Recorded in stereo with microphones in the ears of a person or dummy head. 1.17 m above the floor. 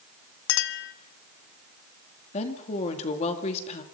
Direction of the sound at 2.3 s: 35° left (ahead or behind).